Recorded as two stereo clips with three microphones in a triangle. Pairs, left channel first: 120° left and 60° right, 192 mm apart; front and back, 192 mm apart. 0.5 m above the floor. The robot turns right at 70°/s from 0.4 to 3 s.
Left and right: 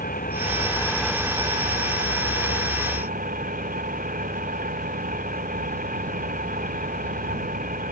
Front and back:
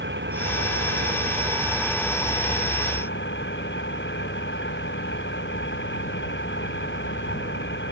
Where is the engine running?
160° left; by 7.9 s 15° right.